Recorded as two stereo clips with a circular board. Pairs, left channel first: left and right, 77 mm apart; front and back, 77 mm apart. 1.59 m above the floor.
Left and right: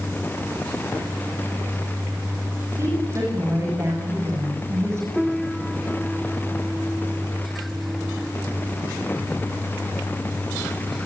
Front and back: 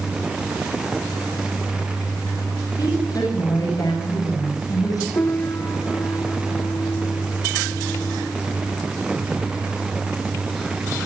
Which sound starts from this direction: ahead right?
A woman speaking, at 2.8 s.